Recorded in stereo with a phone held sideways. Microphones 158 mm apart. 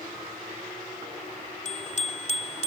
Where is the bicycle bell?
50° left (ahead or behind); by 2.7 s 45° left (ahead or behind).